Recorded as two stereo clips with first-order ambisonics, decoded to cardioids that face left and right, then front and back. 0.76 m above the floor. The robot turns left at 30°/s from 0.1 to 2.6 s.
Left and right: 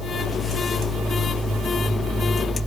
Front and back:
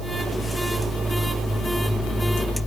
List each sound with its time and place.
Only background noise.